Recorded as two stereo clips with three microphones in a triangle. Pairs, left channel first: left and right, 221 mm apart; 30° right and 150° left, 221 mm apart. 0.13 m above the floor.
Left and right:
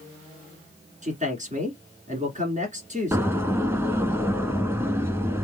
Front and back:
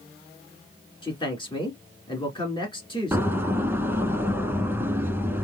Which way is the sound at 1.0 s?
80° right.